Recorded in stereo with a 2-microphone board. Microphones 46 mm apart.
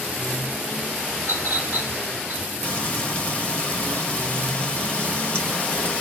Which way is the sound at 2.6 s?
30° left (ahead or behind).